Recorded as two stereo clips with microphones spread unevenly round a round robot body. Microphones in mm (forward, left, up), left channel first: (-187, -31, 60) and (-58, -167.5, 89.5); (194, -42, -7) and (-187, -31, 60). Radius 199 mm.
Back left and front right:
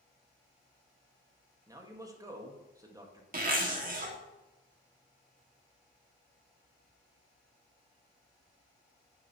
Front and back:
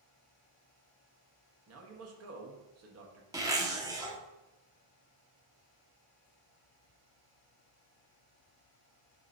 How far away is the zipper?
About 1.4 m.